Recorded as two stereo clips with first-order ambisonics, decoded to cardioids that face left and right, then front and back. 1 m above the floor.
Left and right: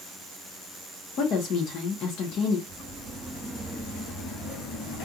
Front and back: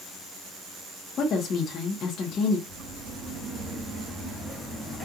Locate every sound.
1.2 s a woman speaking: 50° left, 0.9 m
2.7 s footsteps: 165° right, 1.8 m; by 5.1 s 95° left, 1.3 m